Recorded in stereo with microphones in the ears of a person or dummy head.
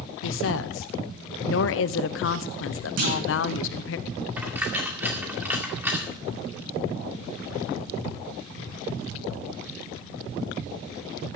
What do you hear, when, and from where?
0.2 s a woman speaking: 70° left (ahead or behind), 0.7 m
3.0 s a clunk: 50° right (ahead or behind), 2.5 m
4.4 s a dropped coin: 10° right (ahead or behind), 2 m